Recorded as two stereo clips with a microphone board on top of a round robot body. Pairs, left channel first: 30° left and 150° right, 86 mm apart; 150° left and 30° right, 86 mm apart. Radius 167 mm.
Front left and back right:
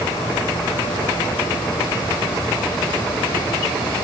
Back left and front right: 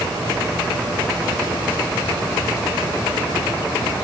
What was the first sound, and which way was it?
Only background noise.